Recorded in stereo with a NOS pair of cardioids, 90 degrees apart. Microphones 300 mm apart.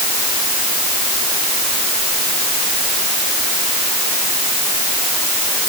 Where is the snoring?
I don't hear snoring.